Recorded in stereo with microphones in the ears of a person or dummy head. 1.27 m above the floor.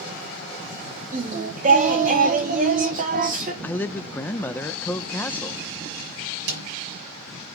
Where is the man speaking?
5° left (ahead or behind), 0.5 m.